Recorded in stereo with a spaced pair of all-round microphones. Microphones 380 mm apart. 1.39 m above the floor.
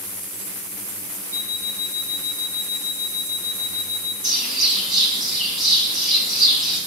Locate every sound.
1.3 s an alarm clock: 30° left (ahead or behind), 4 m
4.2 s a bird: 20° left (ahead or behind), 4.5 m